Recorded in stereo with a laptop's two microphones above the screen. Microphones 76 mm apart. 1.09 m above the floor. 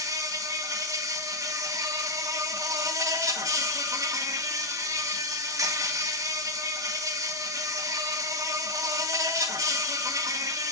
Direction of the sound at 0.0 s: 50° right (ahead or behind).